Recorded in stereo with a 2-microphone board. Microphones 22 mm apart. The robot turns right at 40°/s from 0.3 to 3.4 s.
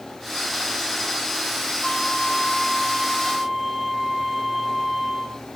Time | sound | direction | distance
1.8 | a flute | 125° left | 2.5 m